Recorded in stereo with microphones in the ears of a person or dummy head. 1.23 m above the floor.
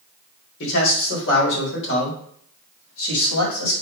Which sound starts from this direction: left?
A man speaking, at 0.6 s.